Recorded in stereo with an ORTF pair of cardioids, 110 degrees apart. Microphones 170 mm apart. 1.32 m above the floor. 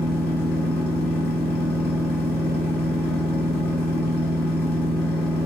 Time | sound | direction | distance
0.0 | a machine running | 65° left | 1.0 m